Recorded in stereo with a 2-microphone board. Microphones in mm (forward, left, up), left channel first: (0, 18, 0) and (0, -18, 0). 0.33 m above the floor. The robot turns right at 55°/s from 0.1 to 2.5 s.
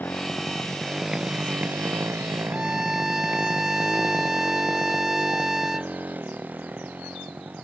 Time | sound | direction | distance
0.0 | a motorcycle | 60° left (ahead or behind) | ?
2.5 | a violin | 10° right (ahead or behind) | ?